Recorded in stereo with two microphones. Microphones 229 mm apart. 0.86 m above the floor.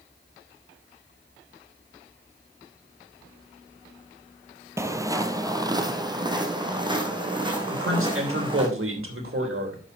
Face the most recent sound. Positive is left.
turn(degrees=-65)  # may be behind; listen again after turning